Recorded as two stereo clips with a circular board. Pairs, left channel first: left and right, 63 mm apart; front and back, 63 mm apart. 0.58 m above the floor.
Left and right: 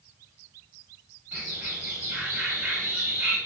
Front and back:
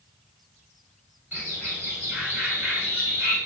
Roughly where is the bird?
Behind right.